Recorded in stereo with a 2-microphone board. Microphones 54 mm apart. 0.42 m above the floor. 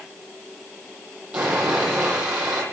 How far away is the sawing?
About 9.5 m.